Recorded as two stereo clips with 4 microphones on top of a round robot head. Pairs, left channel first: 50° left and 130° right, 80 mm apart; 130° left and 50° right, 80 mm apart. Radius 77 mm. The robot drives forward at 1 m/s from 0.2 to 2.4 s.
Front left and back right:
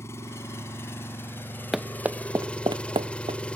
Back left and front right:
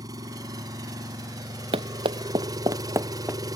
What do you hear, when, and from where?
0.0 s an engine running: 10° right; by 3.6 s 25° right
1.7 s running footsteps: 45° right; by 3.6 s 120° right